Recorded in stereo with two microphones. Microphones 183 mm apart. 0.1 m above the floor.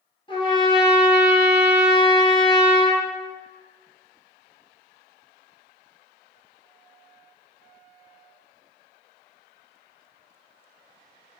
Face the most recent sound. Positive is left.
turn(degrees=30)  # may be behind; listen again after turning